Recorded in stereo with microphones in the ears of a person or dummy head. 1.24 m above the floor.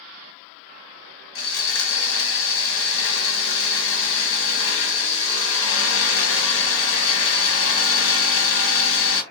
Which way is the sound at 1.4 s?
65° left (ahead or behind).